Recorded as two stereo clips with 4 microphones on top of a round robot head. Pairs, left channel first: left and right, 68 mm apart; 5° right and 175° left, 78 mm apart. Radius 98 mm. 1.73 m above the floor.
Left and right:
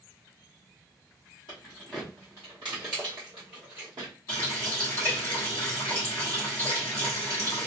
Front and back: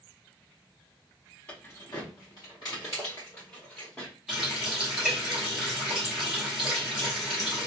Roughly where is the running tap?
Left.